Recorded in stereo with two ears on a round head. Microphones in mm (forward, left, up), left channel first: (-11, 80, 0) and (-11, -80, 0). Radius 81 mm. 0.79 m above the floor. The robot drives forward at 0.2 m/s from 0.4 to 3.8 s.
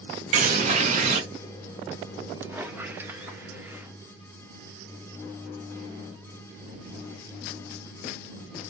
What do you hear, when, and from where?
0.3 s a bird: 45° right (ahead or behind), 1.0 m; by 1.2 s 40° right (ahead or behind), 1.1 m
2.4 s a squeak: 10° right (ahead or behind), 0.6 m